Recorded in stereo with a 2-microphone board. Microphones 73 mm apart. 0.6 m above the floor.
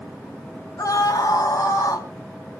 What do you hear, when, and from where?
0.8 s a scream: 60° left (ahead or behind), 2 m; by 2.1 s 70° left (ahead or behind), 3 m